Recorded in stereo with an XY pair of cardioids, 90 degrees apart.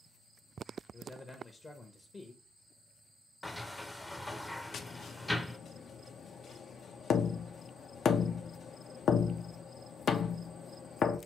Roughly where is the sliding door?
Ahead.